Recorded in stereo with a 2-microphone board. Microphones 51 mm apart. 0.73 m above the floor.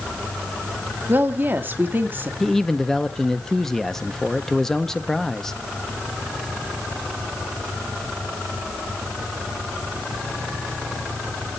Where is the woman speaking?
35° right (ahead or behind), 1.6 m.